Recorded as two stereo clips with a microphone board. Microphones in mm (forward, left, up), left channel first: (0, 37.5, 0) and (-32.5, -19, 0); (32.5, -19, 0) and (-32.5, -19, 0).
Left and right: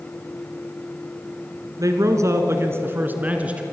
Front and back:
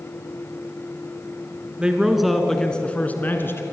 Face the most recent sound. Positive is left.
turn(degrees=-50)